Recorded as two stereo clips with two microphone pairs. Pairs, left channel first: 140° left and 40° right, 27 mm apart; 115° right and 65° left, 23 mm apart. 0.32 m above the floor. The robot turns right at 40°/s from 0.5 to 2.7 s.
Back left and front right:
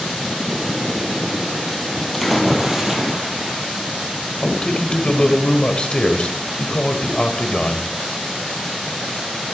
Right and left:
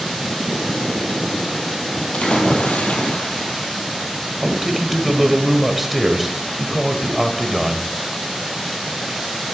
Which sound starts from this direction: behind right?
A splash, at 2.1 s.